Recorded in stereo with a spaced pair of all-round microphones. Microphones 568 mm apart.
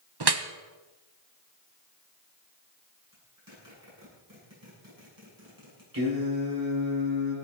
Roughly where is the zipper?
Right.